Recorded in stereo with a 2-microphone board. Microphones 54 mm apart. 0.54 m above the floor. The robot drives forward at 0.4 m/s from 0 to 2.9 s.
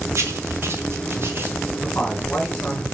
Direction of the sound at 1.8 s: 30° left (ahead or behind).